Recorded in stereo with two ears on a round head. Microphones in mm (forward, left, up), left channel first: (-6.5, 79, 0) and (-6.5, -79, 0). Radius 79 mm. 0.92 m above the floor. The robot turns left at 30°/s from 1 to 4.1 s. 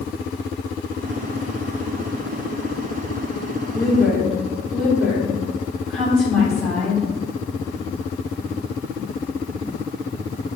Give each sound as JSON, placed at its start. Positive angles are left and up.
{"t": 3.7, "sound": "a woman speaking", "side_deg": 10, "distance_m": 3.0}